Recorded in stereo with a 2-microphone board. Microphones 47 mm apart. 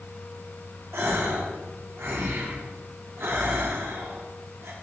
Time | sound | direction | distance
0.9 | a gasp | 75° right (ahead or behind) | 2 m